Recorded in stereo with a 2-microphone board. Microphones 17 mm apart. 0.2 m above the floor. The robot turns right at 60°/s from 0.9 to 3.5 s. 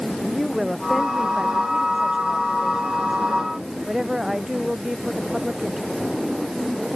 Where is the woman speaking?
175° right; by 6.0 s 20° right.